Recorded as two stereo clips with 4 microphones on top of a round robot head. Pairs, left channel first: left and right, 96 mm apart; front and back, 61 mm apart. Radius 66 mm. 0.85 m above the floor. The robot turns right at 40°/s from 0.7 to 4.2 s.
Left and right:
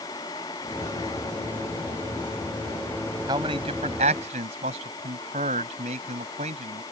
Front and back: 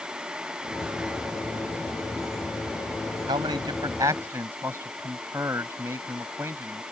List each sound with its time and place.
3.3 s a man speaking: 150° right; by 6.8 s 110° right